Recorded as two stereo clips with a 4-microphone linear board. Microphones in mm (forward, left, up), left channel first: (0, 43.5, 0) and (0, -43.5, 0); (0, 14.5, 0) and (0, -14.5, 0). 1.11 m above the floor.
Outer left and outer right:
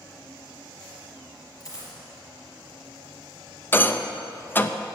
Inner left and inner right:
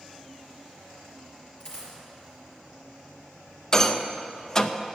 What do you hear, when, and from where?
1.6 s a dropped coin: 40° left (ahead or behind), 3.5 m
3.7 s a rattle: 25° left (ahead or behind), 0.5 m